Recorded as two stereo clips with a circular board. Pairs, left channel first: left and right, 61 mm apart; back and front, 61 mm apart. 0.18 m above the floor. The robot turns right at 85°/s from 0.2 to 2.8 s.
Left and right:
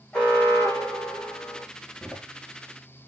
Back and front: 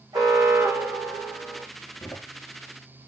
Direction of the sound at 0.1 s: 15° left.